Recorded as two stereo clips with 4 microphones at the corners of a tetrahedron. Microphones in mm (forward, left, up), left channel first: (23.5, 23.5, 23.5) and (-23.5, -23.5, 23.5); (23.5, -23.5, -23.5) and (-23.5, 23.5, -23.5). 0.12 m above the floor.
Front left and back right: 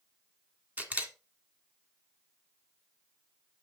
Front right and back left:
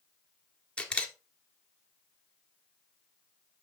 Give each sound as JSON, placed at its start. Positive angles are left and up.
{"t": 0.8, "sound": "a camera shutter", "azimuth_deg": -100, "distance_m": 1.5}